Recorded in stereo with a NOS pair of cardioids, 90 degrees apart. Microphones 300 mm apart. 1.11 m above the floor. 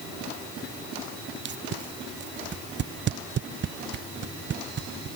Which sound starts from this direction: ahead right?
Tape being pulled, at 1.4 s.